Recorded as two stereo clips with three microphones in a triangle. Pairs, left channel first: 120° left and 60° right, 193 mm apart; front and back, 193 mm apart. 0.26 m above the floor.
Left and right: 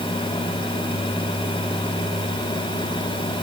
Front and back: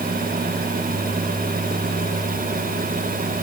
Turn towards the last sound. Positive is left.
No sound to turn to.